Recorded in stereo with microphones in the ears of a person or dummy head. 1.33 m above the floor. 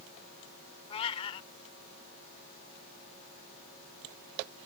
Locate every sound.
0.9 s a cat meowing: 30° left (ahead or behind)